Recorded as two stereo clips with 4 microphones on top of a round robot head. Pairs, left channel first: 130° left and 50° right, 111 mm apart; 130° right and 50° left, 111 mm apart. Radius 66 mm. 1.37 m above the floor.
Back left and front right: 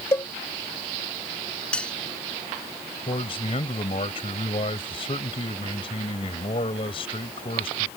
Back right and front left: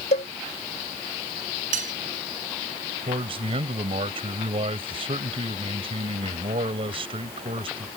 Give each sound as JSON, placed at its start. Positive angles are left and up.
{"t": 0.1, "sound": "a cowbell", "azimuth_deg": -160}
{"t": 1.7, "sound": "cutlery clinking", "azimuth_deg": 50}
{"t": 3.1, "sound": "a man speaking", "azimuth_deg": 90}